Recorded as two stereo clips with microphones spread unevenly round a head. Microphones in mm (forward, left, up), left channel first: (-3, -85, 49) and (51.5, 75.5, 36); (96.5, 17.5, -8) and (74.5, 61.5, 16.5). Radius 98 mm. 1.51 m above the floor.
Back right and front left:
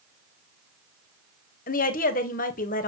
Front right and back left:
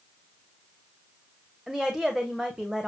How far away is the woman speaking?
About 1.3 m.